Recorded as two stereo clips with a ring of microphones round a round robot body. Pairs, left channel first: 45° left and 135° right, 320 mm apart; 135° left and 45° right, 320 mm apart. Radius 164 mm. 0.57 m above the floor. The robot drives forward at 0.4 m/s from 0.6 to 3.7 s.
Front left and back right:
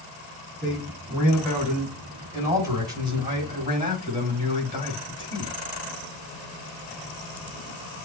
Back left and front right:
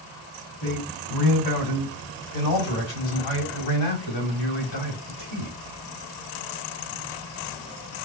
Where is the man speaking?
135° left, 2.5 m; by 5.5 s 150° left, 3.5 m.